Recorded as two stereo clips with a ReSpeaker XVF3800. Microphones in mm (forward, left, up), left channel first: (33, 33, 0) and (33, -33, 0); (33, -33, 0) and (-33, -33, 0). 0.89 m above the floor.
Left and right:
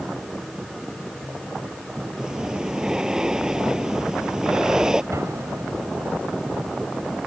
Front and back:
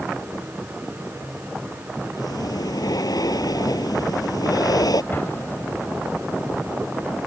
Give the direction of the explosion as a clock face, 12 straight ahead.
2 o'clock.